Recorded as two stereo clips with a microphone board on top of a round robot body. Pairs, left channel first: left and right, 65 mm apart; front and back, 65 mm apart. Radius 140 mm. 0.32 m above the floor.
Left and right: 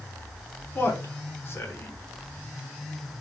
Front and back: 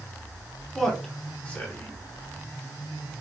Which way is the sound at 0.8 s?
80° left.